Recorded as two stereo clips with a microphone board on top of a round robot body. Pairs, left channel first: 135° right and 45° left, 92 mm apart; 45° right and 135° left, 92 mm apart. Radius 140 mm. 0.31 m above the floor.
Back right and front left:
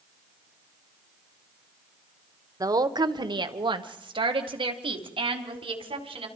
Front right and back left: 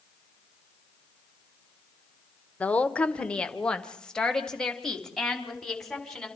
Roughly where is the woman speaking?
Ahead left.